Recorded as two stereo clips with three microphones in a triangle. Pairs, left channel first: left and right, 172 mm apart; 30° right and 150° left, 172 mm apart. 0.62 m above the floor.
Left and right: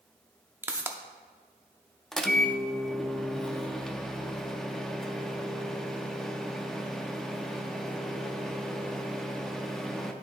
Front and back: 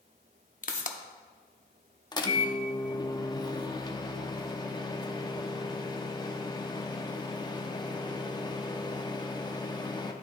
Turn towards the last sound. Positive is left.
turn(degrees=5)